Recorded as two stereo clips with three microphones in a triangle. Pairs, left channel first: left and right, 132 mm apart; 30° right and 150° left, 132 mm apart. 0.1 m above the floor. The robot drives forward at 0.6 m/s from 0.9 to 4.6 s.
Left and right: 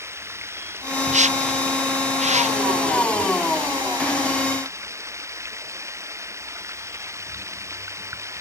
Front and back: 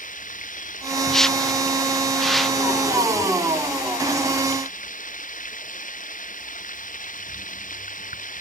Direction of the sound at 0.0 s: 20° right.